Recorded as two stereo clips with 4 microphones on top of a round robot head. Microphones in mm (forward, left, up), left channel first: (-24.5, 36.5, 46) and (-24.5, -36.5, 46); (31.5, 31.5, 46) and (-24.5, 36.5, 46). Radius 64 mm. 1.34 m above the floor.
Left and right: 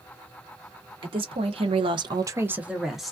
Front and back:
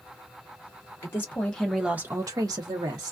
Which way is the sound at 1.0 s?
65° right.